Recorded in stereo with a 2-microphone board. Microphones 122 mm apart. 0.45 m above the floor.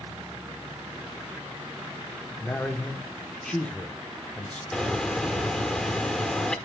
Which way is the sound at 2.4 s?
10° left (ahead or behind).